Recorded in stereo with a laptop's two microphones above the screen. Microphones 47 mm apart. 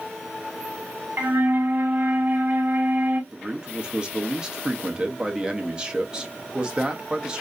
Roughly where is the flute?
Right.